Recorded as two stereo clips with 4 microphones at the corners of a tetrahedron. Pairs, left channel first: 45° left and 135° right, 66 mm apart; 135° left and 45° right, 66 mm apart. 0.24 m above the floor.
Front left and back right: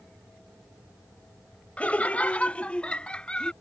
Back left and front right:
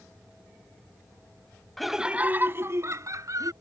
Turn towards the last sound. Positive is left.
turn(degrees=-30)